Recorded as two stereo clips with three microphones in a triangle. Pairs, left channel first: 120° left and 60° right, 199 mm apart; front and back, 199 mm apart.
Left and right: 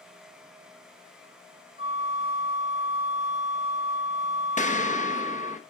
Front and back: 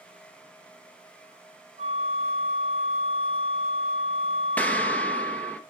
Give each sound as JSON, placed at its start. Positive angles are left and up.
{"t": 1.8, "sound": "a flute", "azimuth_deg": 0, "distance_m": 1.7}
{"t": 4.6, "sound": "an explosion", "azimuth_deg": 80, "distance_m": 1.0}